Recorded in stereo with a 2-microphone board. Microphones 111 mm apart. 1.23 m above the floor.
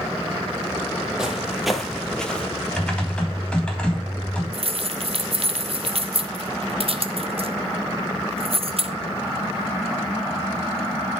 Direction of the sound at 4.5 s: 60° right (ahead or behind).